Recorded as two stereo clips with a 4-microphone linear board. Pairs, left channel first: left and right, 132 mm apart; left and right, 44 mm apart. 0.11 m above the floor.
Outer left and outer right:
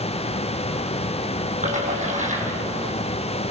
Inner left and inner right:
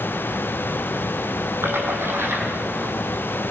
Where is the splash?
70° right (ahead or behind), 5 m.